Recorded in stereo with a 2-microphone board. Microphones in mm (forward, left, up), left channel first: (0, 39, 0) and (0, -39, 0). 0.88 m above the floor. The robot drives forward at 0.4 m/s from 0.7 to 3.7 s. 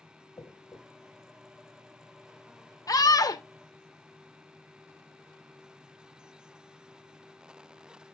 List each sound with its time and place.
0.4 s a dropped coin: 45° left (ahead or behind), 1.5 m
2.9 s a scream: 50° left (ahead or behind), 0.5 m; by 3.4 s 45° left (ahead or behind), 0.5 m